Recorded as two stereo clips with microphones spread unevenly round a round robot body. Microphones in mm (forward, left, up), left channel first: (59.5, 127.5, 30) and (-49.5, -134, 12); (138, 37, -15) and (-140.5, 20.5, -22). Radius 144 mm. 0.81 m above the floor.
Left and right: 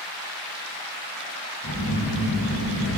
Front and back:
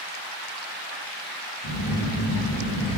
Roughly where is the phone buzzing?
Ahead.